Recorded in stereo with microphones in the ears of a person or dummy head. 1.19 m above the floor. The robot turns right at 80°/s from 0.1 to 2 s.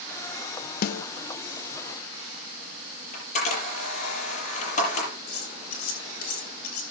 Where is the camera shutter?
40° left (ahead or behind), 7.5 m.